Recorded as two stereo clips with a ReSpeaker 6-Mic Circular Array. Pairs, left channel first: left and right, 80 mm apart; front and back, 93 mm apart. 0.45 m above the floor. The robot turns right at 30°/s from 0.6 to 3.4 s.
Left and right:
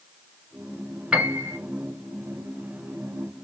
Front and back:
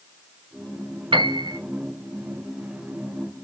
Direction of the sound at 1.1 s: 170° right.